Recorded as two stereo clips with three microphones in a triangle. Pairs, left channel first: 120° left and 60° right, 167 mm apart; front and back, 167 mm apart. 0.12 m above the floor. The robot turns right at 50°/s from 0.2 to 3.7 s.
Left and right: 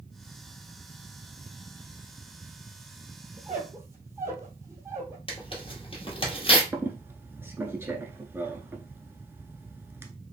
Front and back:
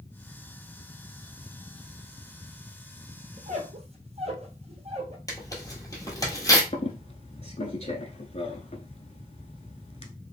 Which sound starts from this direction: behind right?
A squeak, at 3.4 s.